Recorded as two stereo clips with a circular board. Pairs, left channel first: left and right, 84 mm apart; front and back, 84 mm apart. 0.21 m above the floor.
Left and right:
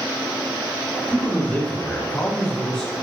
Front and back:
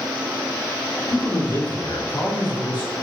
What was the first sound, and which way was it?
A man speaking, 25° left.